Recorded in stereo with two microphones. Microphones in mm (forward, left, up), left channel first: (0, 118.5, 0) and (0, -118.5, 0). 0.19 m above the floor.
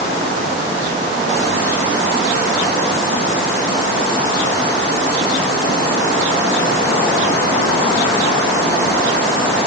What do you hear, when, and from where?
Only background noise.